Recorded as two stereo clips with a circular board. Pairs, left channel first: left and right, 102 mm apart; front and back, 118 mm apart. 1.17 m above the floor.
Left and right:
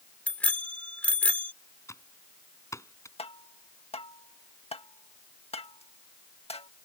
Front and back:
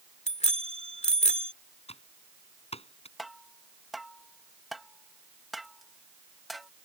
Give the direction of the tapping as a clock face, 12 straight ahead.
9 o'clock.